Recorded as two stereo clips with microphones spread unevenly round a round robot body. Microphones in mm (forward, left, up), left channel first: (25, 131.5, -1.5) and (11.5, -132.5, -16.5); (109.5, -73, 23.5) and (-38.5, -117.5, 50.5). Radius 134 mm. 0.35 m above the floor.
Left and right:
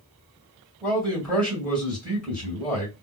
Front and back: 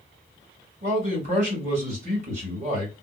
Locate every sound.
0.8 s a man speaking: 175° left, 1.8 m